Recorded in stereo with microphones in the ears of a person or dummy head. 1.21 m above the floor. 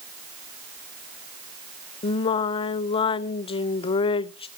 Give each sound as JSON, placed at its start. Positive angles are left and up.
{"t": 2.0, "sound": "singing", "side_deg": 25, "distance_m": 0.5}